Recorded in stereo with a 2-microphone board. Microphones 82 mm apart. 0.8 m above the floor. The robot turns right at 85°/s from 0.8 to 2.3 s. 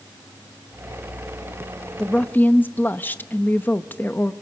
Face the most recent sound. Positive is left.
turn(degrees=25)  # may be behind; listen again after turning